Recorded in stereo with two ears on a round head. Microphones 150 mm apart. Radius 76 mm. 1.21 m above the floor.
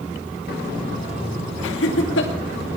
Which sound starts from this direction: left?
Laughter, at 1.6 s.